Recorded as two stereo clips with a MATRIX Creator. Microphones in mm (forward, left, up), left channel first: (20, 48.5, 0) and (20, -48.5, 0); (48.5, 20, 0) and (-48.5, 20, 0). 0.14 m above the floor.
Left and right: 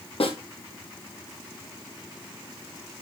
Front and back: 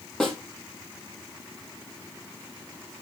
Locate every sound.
0.2 s a snare drum: 85° left, 3.5 m